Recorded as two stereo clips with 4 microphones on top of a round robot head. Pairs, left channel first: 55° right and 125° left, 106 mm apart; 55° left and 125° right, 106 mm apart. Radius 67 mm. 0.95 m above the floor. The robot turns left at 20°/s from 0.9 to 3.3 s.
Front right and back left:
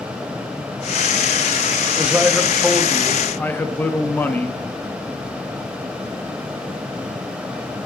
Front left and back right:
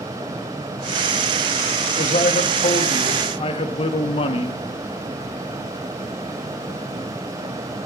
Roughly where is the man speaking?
Ahead left.